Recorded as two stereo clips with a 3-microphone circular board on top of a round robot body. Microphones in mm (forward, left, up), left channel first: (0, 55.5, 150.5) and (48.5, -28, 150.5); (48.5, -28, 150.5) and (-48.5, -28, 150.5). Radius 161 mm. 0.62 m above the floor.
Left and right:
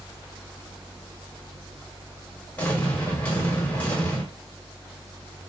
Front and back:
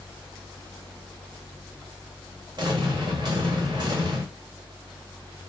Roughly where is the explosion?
Behind.